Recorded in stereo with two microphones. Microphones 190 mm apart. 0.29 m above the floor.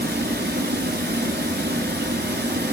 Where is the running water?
70° right (ahead or behind), 1.2 m.